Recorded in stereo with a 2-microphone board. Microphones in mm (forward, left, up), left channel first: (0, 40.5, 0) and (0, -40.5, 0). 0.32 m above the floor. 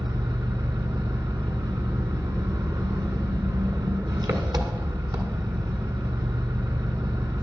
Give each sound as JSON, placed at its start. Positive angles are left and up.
{"t": 0.0, "sound": "an engine running", "side_deg": -55, "distance_m": 1.5}